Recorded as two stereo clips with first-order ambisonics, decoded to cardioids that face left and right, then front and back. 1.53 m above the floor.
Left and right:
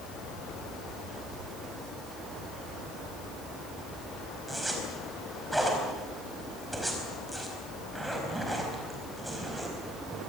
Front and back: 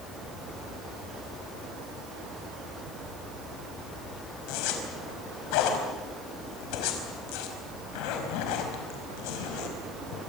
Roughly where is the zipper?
Ahead.